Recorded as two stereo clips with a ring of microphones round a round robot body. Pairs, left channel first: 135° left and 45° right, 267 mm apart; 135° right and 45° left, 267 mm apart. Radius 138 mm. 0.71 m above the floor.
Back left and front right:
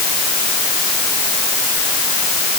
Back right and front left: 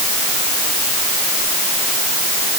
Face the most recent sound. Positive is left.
No sound to turn to.